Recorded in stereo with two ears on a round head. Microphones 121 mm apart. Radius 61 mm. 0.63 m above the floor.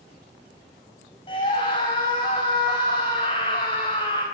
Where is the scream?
35° left (ahead or behind), 4 m.